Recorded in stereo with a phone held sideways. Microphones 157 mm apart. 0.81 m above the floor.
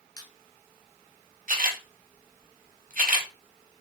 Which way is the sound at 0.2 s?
25° left (ahead or behind).